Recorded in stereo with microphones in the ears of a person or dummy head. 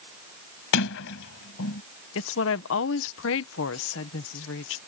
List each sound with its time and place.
0.7 s a sliding door: 65° left (ahead or behind)
2.1 s a woman speaking: 65° left (ahead or behind)